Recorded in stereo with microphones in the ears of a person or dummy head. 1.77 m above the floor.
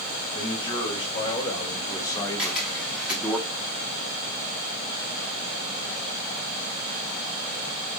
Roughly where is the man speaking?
Left.